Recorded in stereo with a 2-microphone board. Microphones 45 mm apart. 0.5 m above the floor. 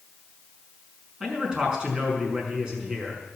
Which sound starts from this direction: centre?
A man speaking, at 1.2 s.